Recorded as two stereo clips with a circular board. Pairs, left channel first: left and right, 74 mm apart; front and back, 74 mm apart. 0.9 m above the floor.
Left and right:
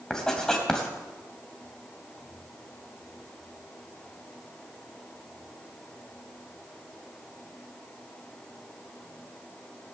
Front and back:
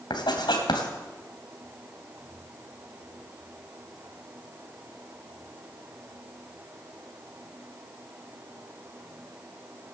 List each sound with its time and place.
0.1 s writing: 10° left, 2.5 m